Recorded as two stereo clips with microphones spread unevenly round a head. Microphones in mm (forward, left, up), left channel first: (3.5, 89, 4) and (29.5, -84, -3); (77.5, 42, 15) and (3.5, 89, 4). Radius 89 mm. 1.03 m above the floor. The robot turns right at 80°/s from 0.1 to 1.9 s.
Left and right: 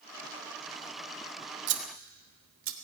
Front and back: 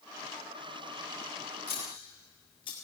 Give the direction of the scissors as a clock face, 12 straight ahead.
4 o'clock.